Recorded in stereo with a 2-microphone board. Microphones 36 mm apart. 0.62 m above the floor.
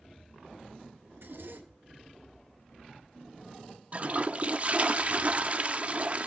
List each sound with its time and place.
1.1 s a zipper: 75° right (ahead or behind), 1.9 m
3.9 s a toilet flushing: 35° right (ahead or behind), 0.8 m